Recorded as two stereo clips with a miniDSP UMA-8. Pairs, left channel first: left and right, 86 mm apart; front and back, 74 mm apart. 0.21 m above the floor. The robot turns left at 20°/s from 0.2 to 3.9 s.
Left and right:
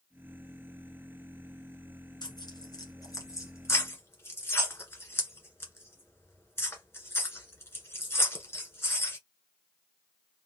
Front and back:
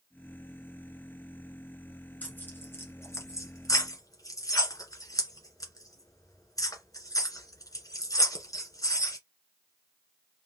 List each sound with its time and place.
2.2 s tearing paper: 65° left, 1.4 m; by 9.2 s 30° left, 1.4 m